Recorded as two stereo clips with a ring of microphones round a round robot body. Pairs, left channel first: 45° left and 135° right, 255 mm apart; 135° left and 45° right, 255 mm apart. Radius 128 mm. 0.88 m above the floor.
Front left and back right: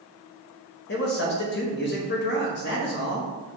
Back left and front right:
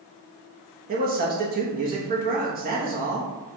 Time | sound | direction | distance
0.9 | a man speaking | 5° left | 0.9 m